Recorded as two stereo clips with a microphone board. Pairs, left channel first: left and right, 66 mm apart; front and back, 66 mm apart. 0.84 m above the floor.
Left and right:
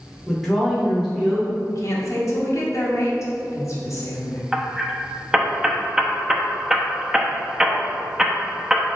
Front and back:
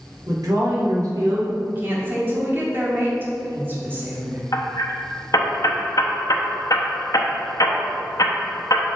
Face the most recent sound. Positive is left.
turn(degrees=-10)